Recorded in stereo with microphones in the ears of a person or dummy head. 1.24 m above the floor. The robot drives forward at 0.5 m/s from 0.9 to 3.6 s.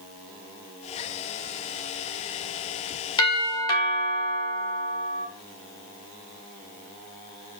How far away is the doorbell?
About 2 m.